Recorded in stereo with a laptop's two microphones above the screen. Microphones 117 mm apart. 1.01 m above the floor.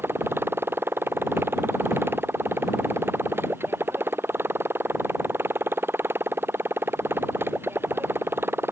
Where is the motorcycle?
20° right (ahead or behind).